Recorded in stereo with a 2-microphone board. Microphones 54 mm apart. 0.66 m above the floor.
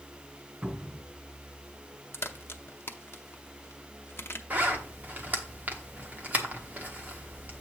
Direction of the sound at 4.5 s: 35° right (ahead or behind).